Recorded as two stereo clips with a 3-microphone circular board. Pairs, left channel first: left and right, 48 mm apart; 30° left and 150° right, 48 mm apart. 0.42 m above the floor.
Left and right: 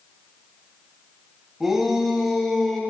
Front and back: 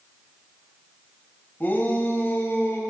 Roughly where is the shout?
Ahead.